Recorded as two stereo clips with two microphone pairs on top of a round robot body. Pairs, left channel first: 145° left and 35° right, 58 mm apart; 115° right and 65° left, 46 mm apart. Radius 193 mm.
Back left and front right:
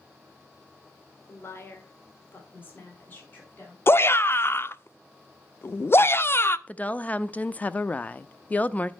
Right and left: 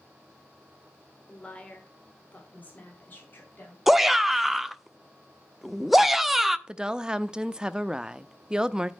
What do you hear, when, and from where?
1.3 s a woman speaking: 175° right, 1.9 m; by 3.8 s 155° right, 3 m
3.9 s a shout: 160° left, 0.9 m
6.7 s a woman speaking: 145° left, 0.8 m